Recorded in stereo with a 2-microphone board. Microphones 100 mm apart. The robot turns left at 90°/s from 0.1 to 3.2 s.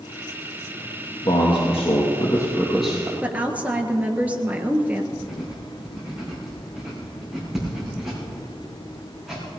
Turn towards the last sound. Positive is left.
turn(degrees=-5)  # may be behind; listen again after turning